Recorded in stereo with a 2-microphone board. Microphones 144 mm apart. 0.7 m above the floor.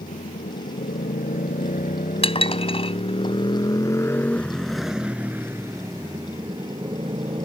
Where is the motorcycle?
80° left; by 7.5 s 40° right (ahead or behind).